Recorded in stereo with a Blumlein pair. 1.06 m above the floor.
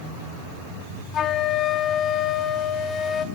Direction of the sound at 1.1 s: 25° left.